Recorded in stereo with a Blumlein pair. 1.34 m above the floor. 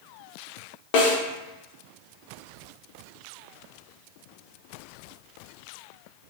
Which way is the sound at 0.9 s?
45° left.